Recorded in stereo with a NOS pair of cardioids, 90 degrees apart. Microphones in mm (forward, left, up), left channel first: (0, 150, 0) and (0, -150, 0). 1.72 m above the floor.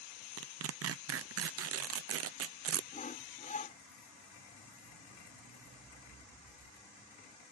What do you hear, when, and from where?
0.4 s tearing paper: 50° right
2.9 s sawing: 25° left